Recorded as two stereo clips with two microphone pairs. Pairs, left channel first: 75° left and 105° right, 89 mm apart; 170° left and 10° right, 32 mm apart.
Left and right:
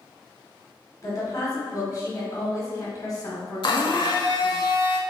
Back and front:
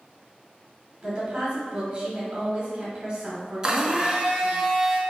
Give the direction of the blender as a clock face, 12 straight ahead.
10 o'clock.